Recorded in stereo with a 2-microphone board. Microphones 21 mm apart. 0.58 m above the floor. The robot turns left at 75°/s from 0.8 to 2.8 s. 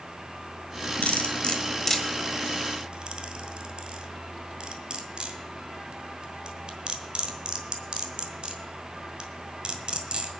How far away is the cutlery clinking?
About 1.5 m.